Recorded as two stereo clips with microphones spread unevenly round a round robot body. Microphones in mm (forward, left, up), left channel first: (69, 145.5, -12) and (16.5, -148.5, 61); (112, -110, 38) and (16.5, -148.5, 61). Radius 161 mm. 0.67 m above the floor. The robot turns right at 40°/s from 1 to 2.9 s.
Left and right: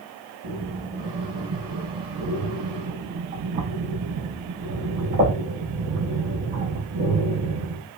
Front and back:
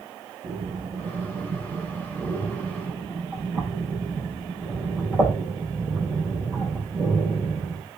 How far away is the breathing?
About 6 m.